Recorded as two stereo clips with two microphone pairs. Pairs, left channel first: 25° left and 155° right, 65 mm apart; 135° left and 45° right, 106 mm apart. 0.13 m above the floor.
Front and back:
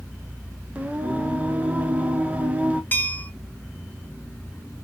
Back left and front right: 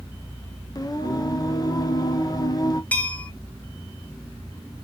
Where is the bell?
65° left, 0.7 m.